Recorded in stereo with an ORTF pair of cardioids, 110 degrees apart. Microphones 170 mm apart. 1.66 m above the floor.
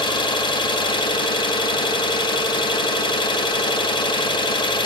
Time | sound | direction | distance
0.0 | an engine running | 30° left | 1.0 m